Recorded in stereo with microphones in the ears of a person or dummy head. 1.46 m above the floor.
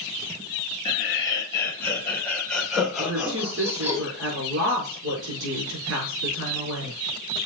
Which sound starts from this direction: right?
A woman speaking, at 3.0 s.